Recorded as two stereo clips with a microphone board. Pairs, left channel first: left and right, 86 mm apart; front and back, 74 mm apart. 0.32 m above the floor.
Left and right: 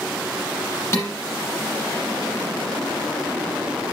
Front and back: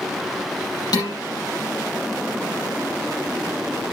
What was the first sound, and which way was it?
Dishes clattering, 30° left.